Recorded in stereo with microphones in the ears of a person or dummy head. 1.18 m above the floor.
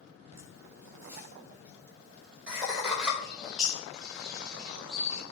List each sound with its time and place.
0.3 s laughter: 20° right (ahead or behind), 6 m; by 3.1 s 5° right (ahead or behind), 6 m
3.2 s a bird: centre (ahead or behind), 1.6 m